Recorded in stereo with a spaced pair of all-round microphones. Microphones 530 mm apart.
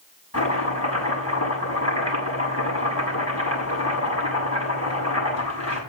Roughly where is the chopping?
Left.